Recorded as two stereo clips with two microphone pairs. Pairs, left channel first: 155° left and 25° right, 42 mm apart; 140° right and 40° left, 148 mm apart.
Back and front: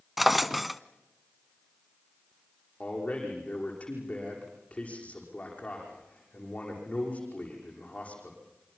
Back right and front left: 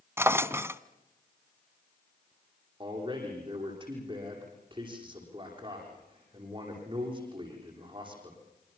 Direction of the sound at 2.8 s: 95° left.